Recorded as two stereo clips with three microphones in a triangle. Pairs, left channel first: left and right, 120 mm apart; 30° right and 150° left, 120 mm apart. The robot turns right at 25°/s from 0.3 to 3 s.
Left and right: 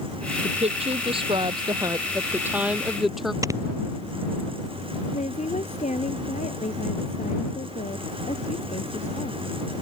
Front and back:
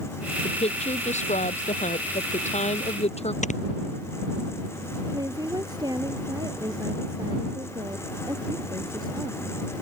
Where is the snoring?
25° right.